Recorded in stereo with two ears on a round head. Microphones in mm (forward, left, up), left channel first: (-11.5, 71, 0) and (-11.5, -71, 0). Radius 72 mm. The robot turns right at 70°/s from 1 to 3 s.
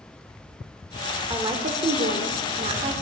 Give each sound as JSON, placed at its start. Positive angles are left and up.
{"t": 1.3, "sound": "a woman speaking", "azimuth_deg": -155, "distance_m": 1.5}